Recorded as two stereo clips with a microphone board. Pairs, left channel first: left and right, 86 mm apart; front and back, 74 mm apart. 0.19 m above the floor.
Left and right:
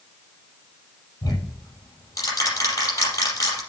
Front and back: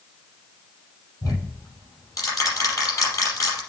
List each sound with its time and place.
1.2 s ticking: 40° left, 5 m